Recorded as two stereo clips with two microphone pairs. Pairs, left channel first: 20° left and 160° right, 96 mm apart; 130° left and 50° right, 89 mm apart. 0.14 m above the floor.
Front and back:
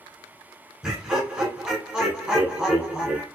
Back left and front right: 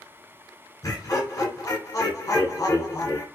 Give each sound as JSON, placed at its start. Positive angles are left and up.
{"t": 0.8, "sound": "laughter", "azimuth_deg": 125, "distance_m": 1.3}